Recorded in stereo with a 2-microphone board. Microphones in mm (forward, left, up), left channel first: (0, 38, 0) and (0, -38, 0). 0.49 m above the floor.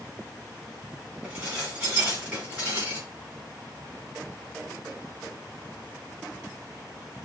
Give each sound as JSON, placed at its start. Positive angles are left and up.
{"t": 1.2, "sound": "dishes clattering", "side_deg": -15, "distance_m": 3.5}